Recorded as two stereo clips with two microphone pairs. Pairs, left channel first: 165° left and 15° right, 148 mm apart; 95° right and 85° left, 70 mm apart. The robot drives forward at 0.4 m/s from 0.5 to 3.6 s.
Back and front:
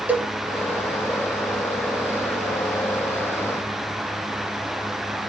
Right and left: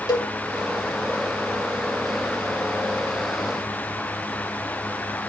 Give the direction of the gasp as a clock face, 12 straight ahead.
I don't hear a gasp.